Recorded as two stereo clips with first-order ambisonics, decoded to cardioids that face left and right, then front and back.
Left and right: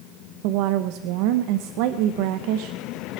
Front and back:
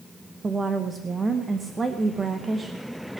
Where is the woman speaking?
105° right, 0.8 m.